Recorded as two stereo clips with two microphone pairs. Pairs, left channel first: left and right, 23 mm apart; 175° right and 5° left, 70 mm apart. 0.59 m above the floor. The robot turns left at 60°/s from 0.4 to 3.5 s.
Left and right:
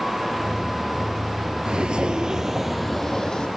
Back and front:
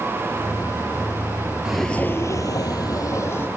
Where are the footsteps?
70° right, 0.7 m; by 3.5 s 125° left, 1.6 m.